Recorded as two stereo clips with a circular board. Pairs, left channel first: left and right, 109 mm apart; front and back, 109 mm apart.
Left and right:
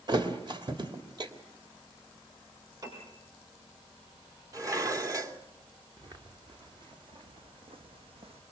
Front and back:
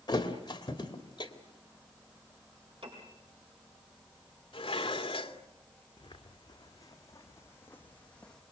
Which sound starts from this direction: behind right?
A piano, at 2.8 s.